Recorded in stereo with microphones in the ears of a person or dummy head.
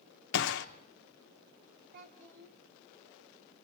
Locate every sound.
0.3 s a gunshot: 65° left (ahead or behind), 0.8 m
1.9 s a child speaking: 65° right (ahead or behind), 2.5 m